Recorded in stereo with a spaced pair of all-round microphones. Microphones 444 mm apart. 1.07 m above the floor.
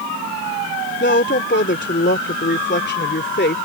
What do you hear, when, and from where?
1.0 s a woman speaking: 25° left (ahead or behind)